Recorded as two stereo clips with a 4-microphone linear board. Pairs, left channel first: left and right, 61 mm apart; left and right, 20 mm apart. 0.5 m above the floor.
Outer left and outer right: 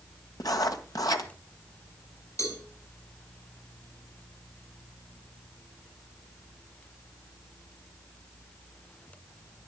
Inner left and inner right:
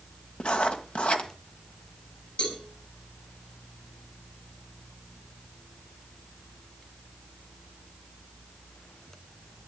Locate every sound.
0.4 s writing: 75° left (ahead or behind), 1.8 m
2.4 s a cowbell: 65° left (ahead or behind), 6 m